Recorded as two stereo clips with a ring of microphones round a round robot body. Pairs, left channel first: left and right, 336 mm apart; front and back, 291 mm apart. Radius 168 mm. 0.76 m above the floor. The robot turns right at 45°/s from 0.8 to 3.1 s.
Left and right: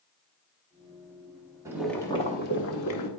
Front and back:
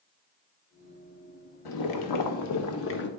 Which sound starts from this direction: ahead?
Boiling, at 1.6 s.